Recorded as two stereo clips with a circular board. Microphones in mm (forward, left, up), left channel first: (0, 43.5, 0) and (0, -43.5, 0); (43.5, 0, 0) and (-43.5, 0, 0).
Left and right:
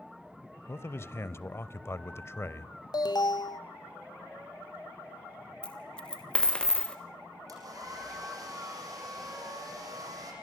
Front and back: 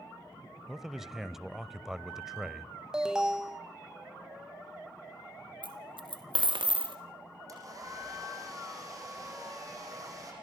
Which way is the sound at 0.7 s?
100° left.